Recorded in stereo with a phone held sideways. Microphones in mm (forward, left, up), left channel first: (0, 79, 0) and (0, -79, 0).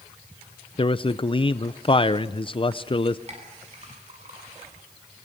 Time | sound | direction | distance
0.8 | a man speaking | 35° left (ahead or behind) | 0.5 m
3.3 | a clink | 45° right (ahead or behind) | 7.5 m